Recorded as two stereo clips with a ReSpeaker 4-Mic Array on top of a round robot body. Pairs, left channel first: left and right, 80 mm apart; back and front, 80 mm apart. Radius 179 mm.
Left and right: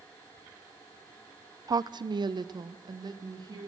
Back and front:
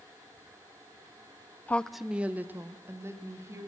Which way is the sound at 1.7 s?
115° right.